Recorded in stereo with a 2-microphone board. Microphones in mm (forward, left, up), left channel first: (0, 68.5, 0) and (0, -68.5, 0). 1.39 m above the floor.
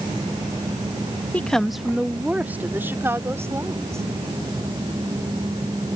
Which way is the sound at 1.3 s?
10° left (ahead or behind).